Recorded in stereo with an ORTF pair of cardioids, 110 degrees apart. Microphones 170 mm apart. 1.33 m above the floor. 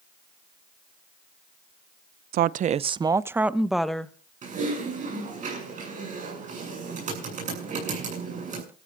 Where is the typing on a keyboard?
45° right, 7.5 m.